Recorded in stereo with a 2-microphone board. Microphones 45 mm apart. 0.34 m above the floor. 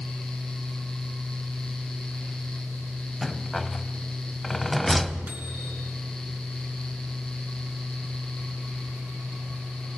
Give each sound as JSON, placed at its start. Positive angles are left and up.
{"t": 3.2, "sound": "a rattle", "side_deg": 5, "distance_m": 0.7}
{"t": 5.3, "sound": "a microwave", "side_deg": -45, "distance_m": 4.5}